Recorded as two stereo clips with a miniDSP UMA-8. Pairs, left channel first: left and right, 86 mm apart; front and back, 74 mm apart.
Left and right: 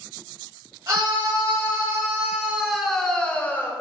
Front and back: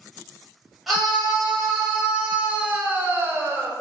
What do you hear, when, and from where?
0.9 s a scream: 95° right, 1.4 m; by 3.7 s 135° left, 1.2 m